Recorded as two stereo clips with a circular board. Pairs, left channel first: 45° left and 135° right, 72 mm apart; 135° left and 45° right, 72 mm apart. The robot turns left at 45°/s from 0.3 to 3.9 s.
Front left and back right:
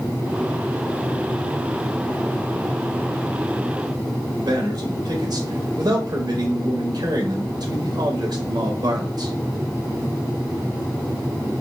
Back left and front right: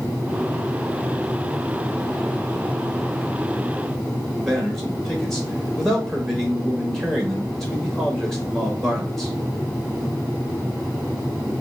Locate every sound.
4.4 s a man speaking: 140° right, 1.1 m